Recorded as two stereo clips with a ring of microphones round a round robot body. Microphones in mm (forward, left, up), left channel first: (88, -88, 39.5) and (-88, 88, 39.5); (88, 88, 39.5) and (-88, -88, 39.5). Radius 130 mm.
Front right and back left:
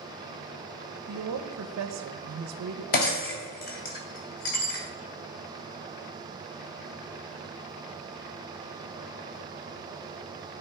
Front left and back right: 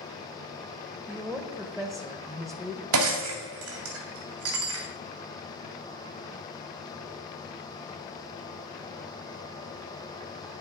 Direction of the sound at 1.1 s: 135° left.